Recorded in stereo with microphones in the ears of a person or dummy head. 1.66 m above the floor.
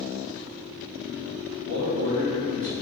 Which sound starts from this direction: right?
A man speaking, at 1.6 s.